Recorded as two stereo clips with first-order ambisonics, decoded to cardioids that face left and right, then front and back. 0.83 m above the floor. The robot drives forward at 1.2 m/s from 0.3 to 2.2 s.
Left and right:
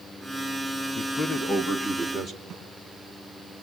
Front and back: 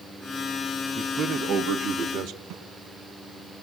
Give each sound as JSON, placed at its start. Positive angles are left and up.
{"t": 0.9, "sound": "a man speaking", "azimuth_deg": 125, "distance_m": 1.1}
{"t": 2.5, "sound": "a snare drum", "azimuth_deg": -160, "distance_m": 6.5}